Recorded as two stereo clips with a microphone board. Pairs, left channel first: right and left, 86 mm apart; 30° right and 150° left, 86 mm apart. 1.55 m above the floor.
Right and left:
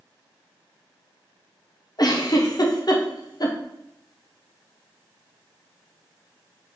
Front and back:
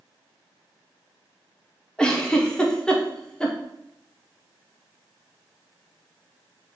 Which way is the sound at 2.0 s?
110° right.